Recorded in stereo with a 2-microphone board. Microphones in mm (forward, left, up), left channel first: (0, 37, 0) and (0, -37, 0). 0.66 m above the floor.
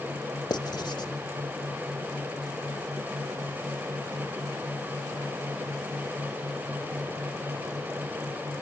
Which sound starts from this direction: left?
Writing, at 0.5 s.